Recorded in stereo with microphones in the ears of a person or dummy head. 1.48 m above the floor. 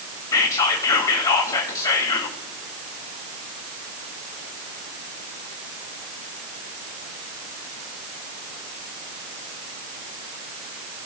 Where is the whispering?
25° left (ahead or behind), 1.9 m.